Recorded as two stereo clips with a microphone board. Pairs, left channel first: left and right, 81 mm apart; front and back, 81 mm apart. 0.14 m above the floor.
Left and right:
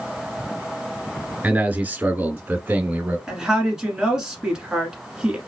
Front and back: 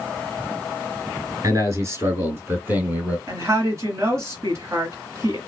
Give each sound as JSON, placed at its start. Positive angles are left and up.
{"t": 1.4, "sound": "a man speaking", "azimuth_deg": -160, "distance_m": 2.0}
{"t": 3.3, "sound": "a woman speaking", "azimuth_deg": -170, "distance_m": 1.7}